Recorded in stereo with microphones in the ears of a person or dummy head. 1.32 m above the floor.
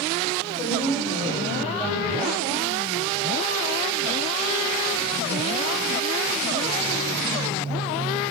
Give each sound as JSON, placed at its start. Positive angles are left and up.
{"t": 0.5, "sound": "a woman speaking", "side_deg": 15, "distance_m": 6.0}